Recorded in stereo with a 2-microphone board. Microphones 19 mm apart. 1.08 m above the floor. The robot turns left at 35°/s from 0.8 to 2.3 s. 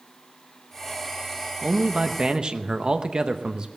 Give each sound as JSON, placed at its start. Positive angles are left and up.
{"t": 1.6, "sound": "a man speaking", "side_deg": -60, "distance_m": 0.8}